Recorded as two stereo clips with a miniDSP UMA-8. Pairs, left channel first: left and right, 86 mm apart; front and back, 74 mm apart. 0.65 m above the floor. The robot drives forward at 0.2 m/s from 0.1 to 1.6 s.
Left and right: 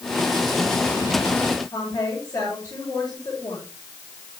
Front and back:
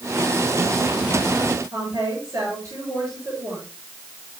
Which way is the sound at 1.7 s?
130° left.